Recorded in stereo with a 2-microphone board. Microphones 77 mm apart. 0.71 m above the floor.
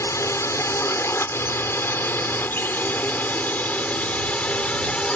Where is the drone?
40° left (ahead or behind); by 5.2 s 15° left (ahead or behind).